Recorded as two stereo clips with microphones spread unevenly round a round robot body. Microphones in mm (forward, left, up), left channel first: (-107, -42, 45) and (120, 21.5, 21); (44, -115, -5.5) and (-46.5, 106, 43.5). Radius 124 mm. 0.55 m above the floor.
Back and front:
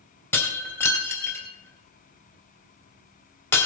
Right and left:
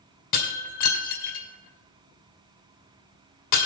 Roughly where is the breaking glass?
Right.